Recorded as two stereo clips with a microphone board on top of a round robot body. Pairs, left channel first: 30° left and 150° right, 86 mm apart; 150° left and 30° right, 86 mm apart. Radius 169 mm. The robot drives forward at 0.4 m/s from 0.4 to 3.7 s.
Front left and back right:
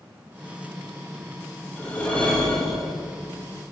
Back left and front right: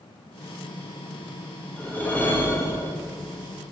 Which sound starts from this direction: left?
A whoosh, at 1.8 s.